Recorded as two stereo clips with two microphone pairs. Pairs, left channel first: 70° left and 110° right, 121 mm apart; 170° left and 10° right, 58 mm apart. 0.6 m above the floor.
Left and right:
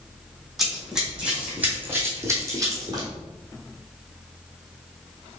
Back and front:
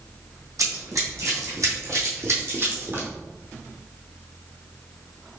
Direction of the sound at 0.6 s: 20° right.